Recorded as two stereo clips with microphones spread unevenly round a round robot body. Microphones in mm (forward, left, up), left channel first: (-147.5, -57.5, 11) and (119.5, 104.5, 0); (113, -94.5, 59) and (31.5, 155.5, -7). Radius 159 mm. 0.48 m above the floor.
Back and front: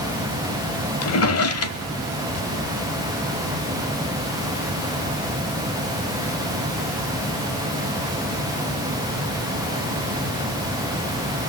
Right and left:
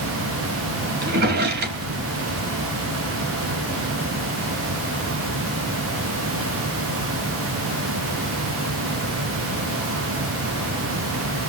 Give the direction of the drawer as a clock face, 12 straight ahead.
7 o'clock.